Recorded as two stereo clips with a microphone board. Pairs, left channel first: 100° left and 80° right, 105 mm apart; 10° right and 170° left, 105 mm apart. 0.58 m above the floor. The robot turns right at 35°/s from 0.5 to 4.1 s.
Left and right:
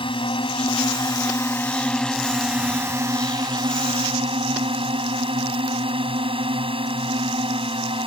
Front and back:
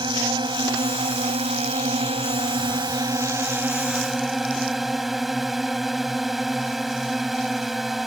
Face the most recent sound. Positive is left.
turn(degrees=-105)